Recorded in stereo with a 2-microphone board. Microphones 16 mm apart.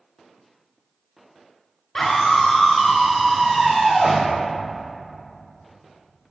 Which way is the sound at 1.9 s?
35° left (ahead or behind).